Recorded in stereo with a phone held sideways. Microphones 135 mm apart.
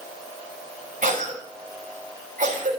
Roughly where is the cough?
Right.